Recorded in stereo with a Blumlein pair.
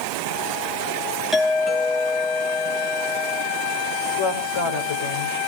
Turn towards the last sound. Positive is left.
turn(degrees=55)